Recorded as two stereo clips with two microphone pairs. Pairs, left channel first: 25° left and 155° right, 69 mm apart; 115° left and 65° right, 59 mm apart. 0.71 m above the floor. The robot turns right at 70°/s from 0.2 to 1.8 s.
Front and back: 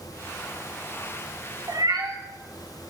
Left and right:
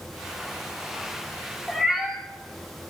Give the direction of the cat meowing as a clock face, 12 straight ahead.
5 o'clock.